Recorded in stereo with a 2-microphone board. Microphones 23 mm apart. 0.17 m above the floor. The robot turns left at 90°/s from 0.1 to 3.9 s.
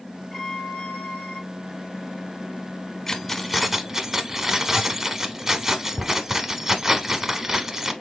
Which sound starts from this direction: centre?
Keys jangling, at 3.1 s.